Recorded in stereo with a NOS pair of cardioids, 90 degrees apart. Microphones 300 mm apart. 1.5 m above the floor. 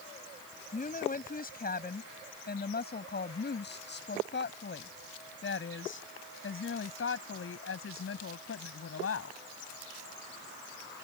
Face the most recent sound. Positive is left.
turn(degrees=50)